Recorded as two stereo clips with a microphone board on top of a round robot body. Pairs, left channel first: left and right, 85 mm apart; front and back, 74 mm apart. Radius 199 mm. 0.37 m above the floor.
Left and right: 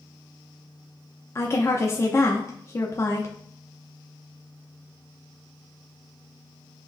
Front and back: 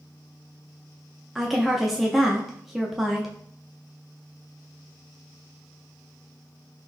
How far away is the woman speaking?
About 0.8 m.